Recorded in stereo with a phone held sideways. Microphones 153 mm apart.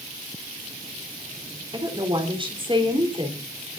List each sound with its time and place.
1.7 s a woman speaking: 35° right (ahead or behind), 4 m